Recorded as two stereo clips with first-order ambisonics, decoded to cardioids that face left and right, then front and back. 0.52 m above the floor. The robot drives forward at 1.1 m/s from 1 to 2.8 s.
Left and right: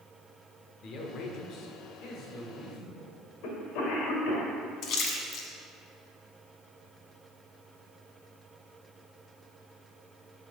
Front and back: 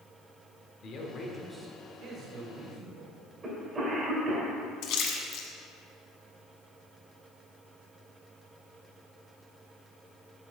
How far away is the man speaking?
About 1.0 m.